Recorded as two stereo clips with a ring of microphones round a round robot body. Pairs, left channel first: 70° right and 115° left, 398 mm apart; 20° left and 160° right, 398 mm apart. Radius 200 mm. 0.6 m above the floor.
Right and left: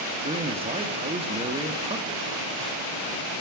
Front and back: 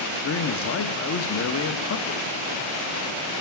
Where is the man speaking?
45° left, 0.7 m.